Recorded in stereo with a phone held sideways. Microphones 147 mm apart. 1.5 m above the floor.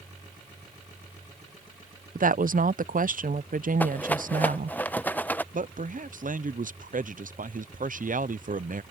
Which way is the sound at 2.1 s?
65° right (ahead or behind).